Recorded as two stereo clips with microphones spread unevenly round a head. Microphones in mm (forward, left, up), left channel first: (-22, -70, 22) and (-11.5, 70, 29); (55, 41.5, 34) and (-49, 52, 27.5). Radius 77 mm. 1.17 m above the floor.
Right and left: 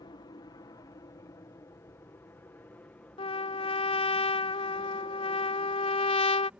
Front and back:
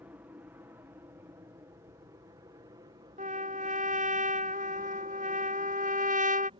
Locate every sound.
0.0 s an aircraft: 125° right; by 6.6 s 165° left
3.2 s a trumpet: 150° right